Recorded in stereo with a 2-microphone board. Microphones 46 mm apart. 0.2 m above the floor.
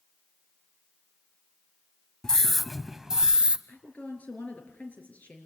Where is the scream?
15° left (ahead or behind), 1.0 m; by 3.6 s 20° right (ahead or behind), 1.1 m.